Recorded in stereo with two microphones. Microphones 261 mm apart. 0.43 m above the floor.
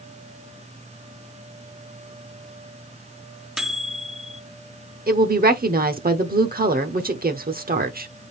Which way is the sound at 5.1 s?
35° right (ahead or behind).